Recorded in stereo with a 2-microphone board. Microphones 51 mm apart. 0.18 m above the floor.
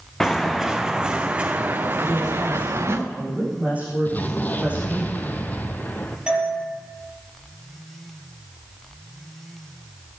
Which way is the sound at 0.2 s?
5° left (ahead or behind).